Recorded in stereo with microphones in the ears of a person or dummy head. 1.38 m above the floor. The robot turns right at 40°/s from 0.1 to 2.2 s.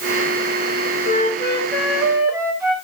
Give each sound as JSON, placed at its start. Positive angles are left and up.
{"t": 1.1, "sound": "a flute", "azimuth_deg": 145, "distance_m": 1.7}